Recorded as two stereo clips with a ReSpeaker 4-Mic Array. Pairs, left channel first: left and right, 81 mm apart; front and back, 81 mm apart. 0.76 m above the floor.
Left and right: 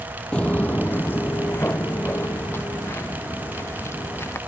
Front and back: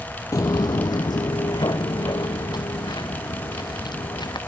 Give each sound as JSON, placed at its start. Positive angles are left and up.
{"t": 0.3, "sound": "footsteps", "azimuth_deg": 20}